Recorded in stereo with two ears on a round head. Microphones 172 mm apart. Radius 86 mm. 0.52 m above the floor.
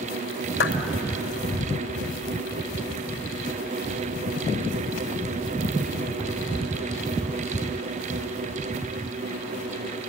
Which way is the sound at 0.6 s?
65° left (ahead or behind).